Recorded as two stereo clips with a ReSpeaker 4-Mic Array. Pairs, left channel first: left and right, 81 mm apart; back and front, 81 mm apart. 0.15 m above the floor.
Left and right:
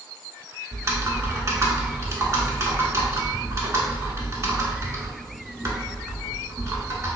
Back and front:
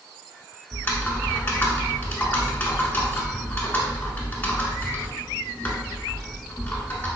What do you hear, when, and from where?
0.7 s typing on a keyboard: 125° right, 0.7 m